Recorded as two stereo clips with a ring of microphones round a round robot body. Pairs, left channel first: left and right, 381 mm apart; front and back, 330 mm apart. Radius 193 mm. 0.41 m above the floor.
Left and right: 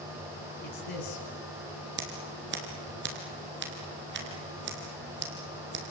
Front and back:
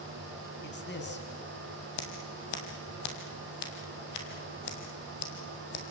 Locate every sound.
0.6 s a man speaking: 55° left, 4 m
2.0 s scissors: 25° right, 3.5 m